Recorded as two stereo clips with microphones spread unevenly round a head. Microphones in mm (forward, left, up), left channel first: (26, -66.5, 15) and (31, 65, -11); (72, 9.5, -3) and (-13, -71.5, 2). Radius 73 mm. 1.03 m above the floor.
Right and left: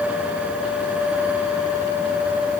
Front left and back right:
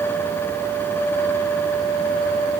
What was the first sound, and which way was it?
Only background noise.